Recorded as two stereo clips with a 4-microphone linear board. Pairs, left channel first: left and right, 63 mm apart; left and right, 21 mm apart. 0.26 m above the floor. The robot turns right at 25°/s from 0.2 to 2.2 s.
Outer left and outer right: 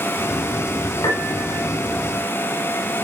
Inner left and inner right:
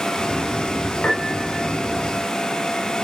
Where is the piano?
85° left, 5 m; by 1.6 s 70° left (ahead or behind), 5 m.